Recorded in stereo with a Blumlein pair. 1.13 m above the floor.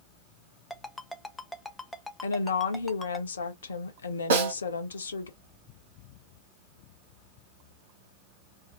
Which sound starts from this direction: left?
A woman speaking, at 2.2 s.